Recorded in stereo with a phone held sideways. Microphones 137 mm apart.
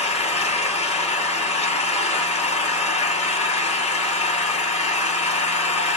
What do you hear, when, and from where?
0.0 s an engine running: 55° left (ahead or behind), 1.8 m